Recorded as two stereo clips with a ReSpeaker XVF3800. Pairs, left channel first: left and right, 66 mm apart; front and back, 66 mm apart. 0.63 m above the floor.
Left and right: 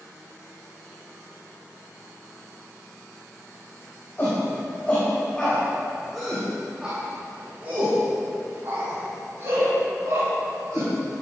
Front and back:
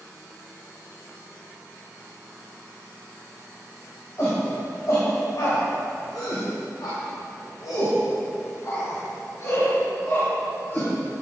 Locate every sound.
4.2 s a shout: 35° left, 3.5 m; by 10.9 s 55° right, 5 m